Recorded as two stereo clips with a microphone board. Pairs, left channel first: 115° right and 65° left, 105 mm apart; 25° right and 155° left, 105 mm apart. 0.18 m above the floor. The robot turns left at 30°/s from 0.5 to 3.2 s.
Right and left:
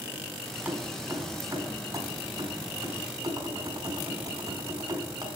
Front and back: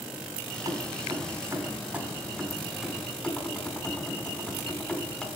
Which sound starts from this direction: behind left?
Keys jangling, at 0.7 s.